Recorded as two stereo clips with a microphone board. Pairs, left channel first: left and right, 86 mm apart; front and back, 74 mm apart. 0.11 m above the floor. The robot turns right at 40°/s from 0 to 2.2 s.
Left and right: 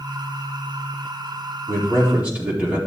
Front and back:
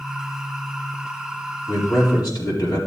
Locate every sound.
1.7 s a man speaking: 40° right, 4.5 m; by 2.8 s 20° right, 4.5 m